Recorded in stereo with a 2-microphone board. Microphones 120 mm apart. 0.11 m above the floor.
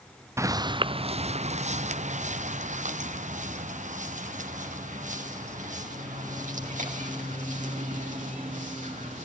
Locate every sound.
0.4 s footsteps: 25° right (ahead or behind), 0.6 m; by 9.3 s 85° right, 5.5 m